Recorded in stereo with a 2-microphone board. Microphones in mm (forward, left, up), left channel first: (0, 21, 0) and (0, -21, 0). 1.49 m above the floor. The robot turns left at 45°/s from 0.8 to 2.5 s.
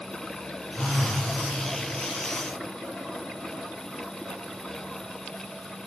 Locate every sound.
0.8 s a phone buzzing: 35° left (ahead or behind), 1.5 m; by 1.3 s 15° left (ahead or behind), 1.5 m